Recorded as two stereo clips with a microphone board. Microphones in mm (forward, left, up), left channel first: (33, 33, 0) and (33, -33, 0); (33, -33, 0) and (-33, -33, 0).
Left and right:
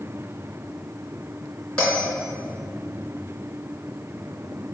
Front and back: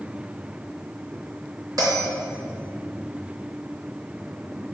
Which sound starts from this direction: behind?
A bell, at 1.8 s.